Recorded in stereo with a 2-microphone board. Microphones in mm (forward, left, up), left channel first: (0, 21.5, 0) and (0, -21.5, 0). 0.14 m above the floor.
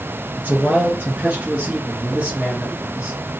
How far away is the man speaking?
About 2 m.